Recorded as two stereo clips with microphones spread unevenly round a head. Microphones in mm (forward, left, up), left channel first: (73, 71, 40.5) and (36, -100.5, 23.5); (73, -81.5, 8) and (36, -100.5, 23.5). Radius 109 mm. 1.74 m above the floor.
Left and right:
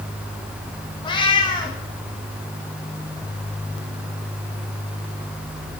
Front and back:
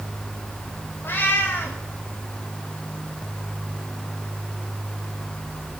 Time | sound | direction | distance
1.0 | a cat meowing | 55° left | 1.1 m